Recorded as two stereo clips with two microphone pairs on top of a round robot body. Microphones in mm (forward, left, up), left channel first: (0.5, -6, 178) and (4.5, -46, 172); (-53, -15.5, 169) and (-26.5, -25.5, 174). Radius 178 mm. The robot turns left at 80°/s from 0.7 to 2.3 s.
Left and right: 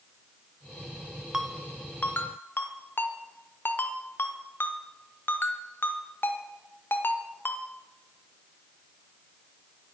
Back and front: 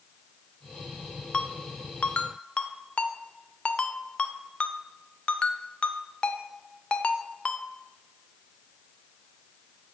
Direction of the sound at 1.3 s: 155° right.